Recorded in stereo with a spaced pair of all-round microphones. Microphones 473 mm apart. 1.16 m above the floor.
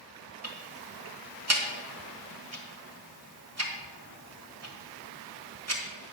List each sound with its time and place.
0.4 s ticking: 30° right (ahead or behind), 1.3 m